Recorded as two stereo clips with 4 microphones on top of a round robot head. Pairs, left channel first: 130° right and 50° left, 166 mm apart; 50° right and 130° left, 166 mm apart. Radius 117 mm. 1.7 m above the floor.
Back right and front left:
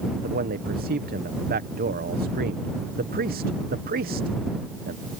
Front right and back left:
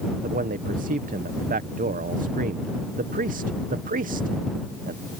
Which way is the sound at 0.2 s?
85° left.